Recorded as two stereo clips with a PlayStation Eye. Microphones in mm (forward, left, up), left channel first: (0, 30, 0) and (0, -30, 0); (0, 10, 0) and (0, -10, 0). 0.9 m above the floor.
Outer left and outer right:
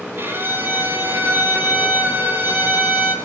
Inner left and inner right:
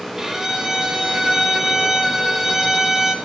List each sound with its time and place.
0.2 s a violin: 35° right (ahead or behind), 2.5 m